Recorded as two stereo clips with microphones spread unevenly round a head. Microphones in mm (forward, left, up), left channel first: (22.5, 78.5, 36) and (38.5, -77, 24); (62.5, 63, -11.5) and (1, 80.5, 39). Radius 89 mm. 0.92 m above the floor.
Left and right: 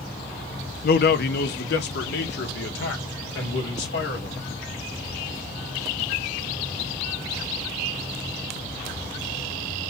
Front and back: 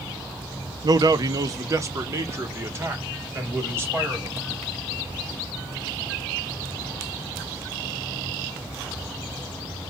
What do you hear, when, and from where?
0.8 s a man speaking: 115° left, 0.7 m; by 4.4 s 100° left, 2.5 m